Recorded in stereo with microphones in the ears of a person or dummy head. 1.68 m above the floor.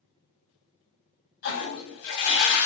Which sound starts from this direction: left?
A toilet flushing, at 1.4 s.